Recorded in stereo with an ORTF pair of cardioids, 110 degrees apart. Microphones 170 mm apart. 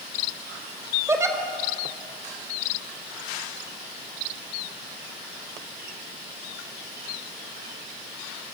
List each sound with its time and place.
1.1 s a giggle: 15° right, 3.5 m